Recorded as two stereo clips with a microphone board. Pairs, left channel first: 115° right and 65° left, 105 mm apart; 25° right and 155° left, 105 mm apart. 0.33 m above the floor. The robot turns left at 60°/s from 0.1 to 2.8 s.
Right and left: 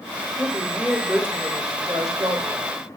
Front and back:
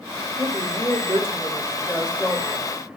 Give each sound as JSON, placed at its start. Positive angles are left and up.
{"t": 0.4, "sound": "a woman speaking", "azimuth_deg": 180, "distance_m": 1.0}